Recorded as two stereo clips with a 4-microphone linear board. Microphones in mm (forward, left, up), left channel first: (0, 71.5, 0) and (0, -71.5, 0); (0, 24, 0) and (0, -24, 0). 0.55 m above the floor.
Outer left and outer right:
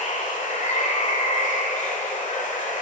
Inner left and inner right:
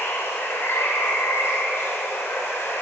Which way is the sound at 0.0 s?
65° left (ahead or behind).